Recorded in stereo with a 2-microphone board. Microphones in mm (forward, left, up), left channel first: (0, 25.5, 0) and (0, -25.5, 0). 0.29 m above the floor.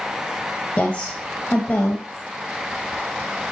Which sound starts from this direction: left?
A woman speaking, at 0.8 s.